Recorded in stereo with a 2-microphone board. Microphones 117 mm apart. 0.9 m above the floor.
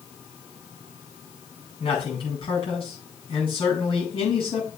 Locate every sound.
1.8 s a man speaking: 45° left (ahead or behind), 6 m